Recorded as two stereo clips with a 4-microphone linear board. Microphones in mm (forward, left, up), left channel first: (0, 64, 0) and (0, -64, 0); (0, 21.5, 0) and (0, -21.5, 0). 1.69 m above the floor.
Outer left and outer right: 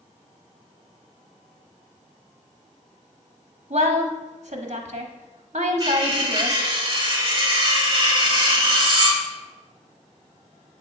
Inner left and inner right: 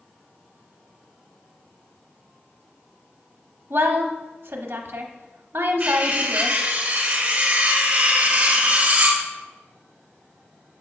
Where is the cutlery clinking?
35° right (ahead or behind), 1.6 m.